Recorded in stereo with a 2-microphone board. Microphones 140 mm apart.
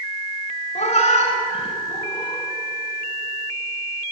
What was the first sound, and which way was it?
A cat meowing, 55° left (ahead or behind).